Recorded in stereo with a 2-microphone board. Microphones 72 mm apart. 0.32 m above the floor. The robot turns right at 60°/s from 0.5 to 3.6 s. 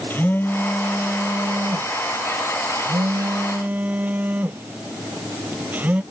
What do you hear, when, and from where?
0.1 s a phone buzzing: 150° left; by 6.0 s 25° right